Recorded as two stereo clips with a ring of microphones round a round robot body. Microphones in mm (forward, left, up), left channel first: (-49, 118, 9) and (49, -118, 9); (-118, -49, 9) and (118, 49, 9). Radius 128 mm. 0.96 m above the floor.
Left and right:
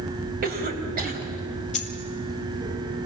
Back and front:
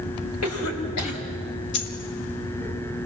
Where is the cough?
125° right, 4.5 m.